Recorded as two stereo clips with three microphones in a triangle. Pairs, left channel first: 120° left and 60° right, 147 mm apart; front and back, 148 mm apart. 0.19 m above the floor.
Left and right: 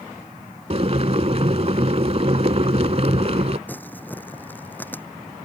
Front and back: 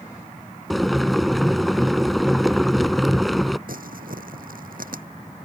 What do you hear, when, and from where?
0.7 s boiling: 90° right
3.7 s crumpling: 160° right